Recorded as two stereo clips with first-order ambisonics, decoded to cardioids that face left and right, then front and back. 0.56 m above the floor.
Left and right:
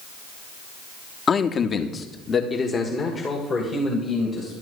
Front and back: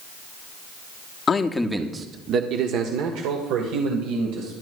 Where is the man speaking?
40° left, 0.9 m; by 4.5 s 170° left, 3 m.